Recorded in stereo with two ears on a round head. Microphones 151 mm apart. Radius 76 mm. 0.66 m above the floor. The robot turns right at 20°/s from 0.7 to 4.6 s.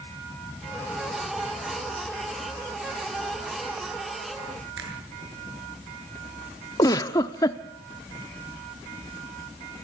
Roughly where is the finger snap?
Right.